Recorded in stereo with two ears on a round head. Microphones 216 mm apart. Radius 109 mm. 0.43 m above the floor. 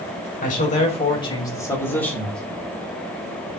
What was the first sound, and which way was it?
A man speaking, 35° left (ahead or behind).